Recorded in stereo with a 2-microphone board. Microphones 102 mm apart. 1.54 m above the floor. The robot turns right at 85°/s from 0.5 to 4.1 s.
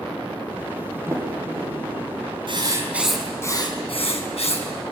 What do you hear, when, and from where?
1.1 s a sliding door: 25° right (ahead or behind), 7 m; by 2.2 s 60° right (ahead or behind), 7 m
2.5 s writing: 55° right, 5 m; by 4.7 s 85° left, 5 m